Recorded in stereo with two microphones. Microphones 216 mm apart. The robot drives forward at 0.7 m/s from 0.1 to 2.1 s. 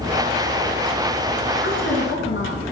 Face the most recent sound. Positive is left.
turn(degrees=60)  # may be behind; listen again after turning